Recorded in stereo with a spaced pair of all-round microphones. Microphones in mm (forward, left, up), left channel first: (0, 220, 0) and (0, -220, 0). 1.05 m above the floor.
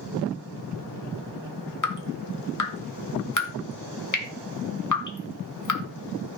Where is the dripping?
40° left (ahead or behind), 2 m.